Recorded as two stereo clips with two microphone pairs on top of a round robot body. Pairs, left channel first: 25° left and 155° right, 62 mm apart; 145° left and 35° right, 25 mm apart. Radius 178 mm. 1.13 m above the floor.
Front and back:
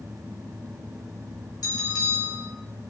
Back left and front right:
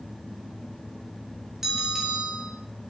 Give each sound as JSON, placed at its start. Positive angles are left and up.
{"t": 1.6, "sound": "a bell", "azimuth_deg": 40, "distance_m": 5.5}